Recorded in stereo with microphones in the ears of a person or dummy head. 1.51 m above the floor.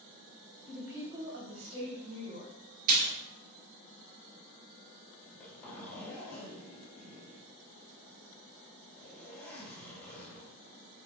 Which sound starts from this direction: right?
A splash, at 2.9 s.